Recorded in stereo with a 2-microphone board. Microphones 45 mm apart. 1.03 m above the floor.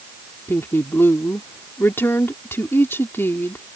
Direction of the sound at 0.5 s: 55° left (ahead or behind).